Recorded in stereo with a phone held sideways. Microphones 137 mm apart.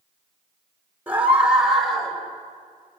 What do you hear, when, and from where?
1.1 s a scream: 10° right (ahead or behind), 4 m; by 2.2 s 5° left (ahead or behind), 4 m